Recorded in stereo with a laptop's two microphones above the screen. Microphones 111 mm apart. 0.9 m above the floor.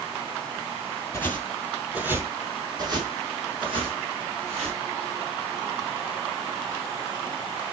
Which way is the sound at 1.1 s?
20° left (ahead or behind).